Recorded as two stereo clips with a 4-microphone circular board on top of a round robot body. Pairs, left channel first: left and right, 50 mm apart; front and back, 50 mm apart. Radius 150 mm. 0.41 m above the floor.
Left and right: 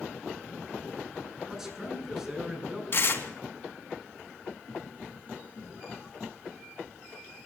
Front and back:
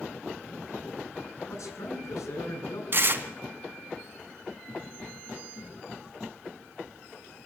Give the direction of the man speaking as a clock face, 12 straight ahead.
12 o'clock.